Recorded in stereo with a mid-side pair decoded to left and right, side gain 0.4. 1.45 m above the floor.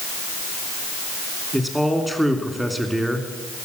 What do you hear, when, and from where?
1.5 s a man speaking: 5° right, 3 m